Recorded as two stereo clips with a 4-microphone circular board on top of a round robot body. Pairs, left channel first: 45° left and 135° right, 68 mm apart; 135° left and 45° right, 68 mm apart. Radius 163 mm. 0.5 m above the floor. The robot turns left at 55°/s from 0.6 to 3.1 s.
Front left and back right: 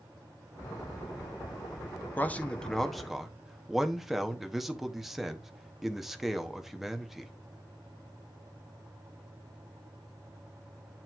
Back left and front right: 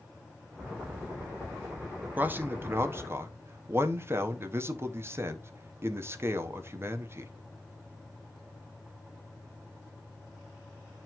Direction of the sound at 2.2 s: Straight ahead.